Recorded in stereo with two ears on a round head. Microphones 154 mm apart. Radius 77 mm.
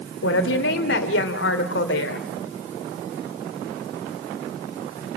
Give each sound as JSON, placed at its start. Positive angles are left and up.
{"t": 0.2, "sound": "a woman speaking", "side_deg": 75, "distance_m": 3.0}